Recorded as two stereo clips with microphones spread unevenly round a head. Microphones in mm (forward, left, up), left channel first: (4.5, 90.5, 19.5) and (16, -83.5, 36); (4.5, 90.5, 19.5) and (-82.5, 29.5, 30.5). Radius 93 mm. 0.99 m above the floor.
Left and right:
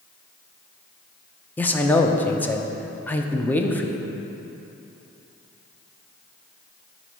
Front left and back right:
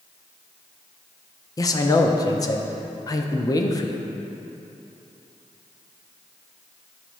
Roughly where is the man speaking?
Ahead left.